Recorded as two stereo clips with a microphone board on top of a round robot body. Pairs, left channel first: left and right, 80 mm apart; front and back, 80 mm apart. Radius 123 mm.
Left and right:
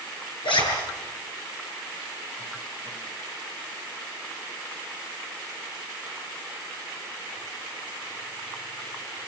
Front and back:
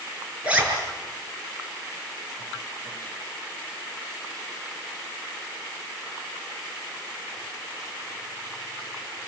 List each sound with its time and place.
0.4 s a zipper: 105° left, 6.5 m